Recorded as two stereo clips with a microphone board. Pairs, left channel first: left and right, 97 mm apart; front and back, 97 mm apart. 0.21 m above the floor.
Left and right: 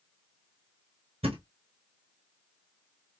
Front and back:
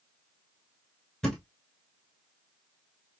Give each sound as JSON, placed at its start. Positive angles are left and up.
{"t": 1.2, "sound": "a thud", "azimuth_deg": -85, "distance_m": 1.3}